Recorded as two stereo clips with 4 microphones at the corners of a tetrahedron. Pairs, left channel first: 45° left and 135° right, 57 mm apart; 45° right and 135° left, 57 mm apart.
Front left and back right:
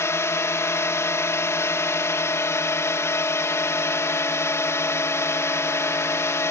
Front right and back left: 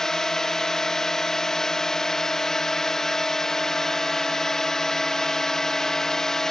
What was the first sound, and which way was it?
A drone, 30° left.